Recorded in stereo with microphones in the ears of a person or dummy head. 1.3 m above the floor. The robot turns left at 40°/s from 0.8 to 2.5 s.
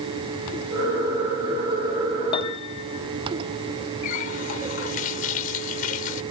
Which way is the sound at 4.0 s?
50° left (ahead or behind).